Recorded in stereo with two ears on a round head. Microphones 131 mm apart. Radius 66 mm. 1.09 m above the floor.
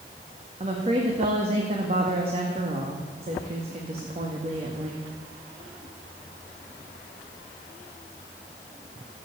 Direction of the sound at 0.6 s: 40° right (ahead or behind).